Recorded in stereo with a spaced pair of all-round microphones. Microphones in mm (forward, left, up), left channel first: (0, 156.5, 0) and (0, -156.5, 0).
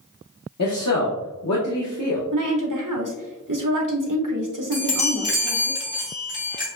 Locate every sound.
0.6 s a man speaking: 60° left (ahead or behind), 0.9 m
2.3 s a woman speaking: 75° right (ahead or behind), 1.0 m
4.7 s a chime: 65° left (ahead or behind), 1.3 m